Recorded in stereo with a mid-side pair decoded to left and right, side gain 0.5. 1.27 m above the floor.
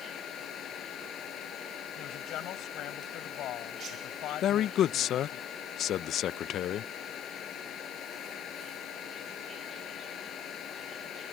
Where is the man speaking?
60° left.